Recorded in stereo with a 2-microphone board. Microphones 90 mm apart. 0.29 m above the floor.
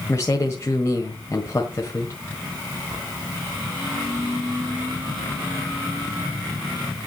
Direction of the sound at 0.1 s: 30° left (ahead or behind).